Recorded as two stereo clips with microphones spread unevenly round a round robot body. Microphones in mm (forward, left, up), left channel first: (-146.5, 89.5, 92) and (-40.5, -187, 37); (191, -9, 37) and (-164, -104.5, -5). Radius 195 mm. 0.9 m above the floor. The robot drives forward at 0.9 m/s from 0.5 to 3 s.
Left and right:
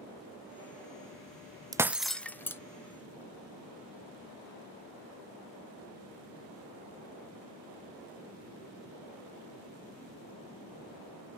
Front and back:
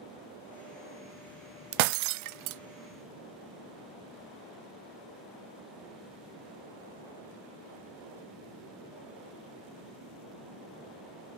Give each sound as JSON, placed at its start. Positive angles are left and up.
{"t": 1.7, "sound": "breaking glass", "azimuth_deg": -150}